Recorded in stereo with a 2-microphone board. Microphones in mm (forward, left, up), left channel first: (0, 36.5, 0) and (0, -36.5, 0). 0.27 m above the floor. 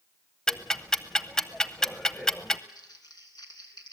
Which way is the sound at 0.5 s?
10° left (ahead or behind).